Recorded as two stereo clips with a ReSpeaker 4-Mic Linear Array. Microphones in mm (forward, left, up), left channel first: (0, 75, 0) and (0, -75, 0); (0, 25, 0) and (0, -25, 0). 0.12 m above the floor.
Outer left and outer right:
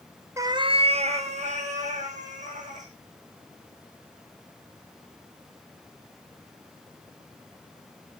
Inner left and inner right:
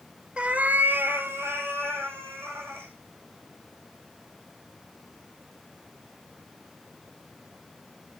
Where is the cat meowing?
20° right (ahead or behind), 0.7 m; by 2.9 s 55° right (ahead or behind), 4 m.